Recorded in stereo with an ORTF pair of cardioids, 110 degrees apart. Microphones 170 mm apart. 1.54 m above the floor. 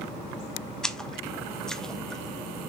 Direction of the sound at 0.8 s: 5° left.